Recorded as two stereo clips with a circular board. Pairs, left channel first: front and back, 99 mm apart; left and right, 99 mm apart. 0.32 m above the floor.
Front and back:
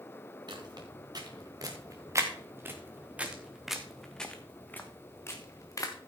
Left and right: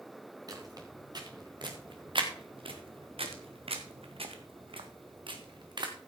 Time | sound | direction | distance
0.5 | footsteps | 140° right | 2.5 m